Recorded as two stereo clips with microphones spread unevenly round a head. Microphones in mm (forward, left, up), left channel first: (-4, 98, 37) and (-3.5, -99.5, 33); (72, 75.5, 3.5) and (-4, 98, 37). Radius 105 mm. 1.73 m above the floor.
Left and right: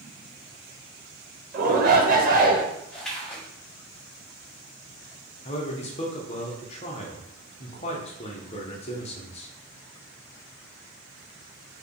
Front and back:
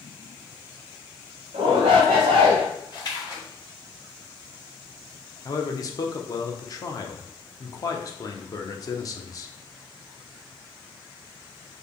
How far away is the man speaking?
About 0.9 m.